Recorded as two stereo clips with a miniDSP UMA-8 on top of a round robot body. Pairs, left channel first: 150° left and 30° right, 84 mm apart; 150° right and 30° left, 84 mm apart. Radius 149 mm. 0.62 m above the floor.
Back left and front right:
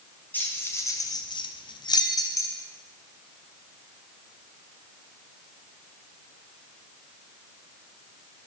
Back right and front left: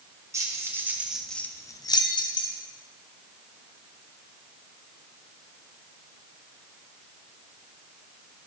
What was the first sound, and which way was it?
Keys jangling, 80° left.